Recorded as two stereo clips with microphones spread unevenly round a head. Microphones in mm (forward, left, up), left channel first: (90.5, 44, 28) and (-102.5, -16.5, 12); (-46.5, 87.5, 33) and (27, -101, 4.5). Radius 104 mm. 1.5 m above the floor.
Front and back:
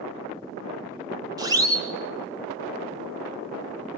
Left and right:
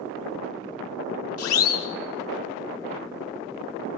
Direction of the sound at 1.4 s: 125° left.